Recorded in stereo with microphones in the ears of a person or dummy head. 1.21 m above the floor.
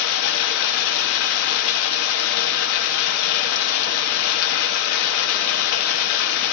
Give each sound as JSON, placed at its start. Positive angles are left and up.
{"t": 0.0, "sound": "running water", "side_deg": 85, "distance_m": 1.4}